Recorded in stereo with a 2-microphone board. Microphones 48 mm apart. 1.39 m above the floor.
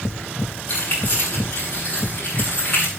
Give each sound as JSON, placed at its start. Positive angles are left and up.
{"t": 0.7, "sound": "keys jangling", "side_deg": 40, "distance_m": 9.0}